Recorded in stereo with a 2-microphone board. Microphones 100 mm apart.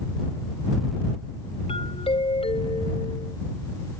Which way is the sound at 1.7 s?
80° left.